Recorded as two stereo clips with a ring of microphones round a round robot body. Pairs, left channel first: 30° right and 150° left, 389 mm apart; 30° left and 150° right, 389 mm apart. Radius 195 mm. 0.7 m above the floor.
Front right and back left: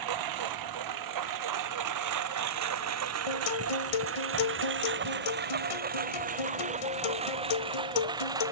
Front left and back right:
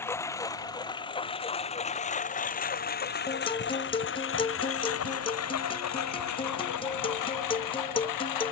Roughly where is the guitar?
Ahead right.